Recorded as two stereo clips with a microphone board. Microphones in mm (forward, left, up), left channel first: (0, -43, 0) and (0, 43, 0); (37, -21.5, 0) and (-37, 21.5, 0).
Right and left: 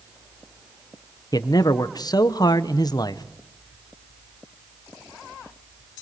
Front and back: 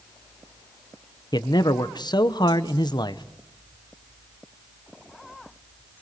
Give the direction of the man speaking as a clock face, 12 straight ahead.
2 o'clock.